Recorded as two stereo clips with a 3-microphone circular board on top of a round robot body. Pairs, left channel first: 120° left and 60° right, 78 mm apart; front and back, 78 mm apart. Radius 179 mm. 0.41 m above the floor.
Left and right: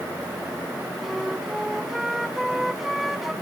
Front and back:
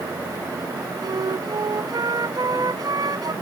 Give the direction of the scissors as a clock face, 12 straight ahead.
No scissors in this recording.